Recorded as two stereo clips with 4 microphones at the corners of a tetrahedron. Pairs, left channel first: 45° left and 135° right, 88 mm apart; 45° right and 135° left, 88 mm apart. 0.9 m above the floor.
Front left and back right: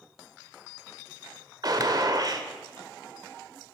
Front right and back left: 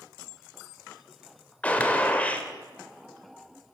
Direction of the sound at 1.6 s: 115° right.